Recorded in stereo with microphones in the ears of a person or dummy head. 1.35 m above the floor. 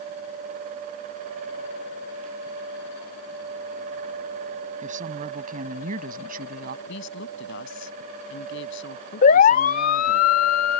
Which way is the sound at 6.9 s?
65° left (ahead or behind).